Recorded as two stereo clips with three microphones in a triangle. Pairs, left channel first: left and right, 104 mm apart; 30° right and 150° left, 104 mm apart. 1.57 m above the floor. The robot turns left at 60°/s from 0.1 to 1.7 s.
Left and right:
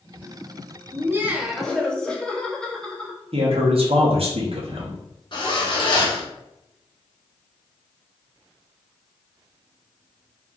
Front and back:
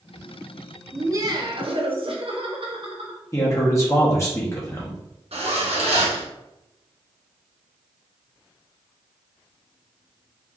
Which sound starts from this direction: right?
A man speaking, at 3.3 s.